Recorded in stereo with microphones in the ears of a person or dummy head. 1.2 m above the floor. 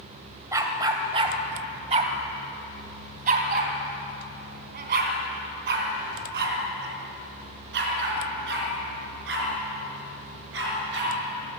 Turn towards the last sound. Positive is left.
turn(degrees=-70)  # may be behind; listen again after turning